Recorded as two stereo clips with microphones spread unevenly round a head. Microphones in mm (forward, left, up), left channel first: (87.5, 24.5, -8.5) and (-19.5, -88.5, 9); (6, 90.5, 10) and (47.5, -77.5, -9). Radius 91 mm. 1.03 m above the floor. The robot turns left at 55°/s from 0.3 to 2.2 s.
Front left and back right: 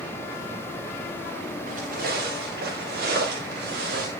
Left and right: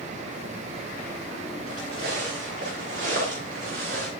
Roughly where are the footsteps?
Right.